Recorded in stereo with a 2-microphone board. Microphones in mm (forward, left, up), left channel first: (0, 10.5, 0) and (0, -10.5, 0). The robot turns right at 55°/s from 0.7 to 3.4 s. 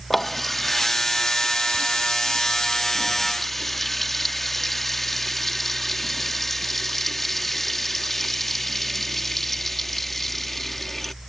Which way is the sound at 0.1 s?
20° left.